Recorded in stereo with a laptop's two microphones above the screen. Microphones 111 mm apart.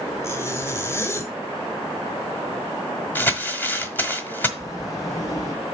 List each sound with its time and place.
0.2 s a zipper: 25° left (ahead or behind), 1.4 m
3.1 s crumpling: 20° left (ahead or behind), 1.2 m
4.6 s a sliding door: 30° left (ahead or behind), 2.5 m